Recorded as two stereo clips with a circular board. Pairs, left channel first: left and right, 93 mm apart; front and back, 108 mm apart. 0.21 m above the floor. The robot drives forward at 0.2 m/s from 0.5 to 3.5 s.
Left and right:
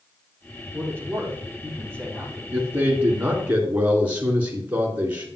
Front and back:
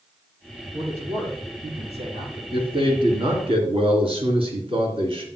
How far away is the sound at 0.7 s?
About 5 m.